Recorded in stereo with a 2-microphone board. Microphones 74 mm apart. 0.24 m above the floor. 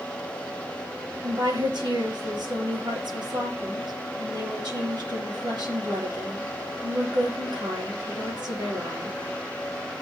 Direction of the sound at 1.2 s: 75° right (ahead or behind).